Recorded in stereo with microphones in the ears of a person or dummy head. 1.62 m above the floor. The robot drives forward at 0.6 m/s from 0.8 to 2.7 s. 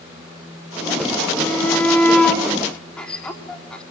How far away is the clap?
I don't hear a clap.